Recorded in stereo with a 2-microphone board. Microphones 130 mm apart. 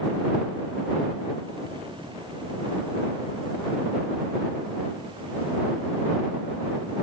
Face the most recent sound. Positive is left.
No sound to turn to.